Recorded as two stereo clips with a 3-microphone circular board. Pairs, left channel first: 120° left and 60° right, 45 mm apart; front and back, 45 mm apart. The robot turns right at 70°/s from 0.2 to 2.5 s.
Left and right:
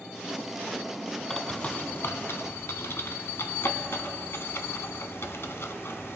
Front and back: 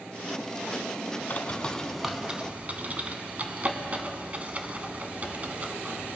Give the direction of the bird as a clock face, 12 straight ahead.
11 o'clock.